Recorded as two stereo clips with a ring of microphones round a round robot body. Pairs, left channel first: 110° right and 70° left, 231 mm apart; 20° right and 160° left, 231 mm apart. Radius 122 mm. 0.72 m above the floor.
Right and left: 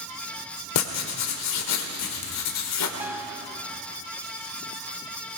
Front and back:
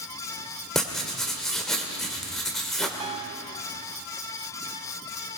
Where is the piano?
140° left, 0.6 m.